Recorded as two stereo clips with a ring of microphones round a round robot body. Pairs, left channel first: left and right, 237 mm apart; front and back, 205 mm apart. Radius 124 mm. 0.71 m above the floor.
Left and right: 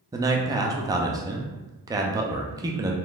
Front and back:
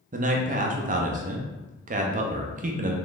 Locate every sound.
0.1 s a man speaking: 160° right, 0.5 m